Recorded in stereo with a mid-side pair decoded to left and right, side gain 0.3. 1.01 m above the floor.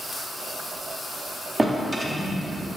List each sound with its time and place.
1.6 s a drawer: 35° right, 1.2 m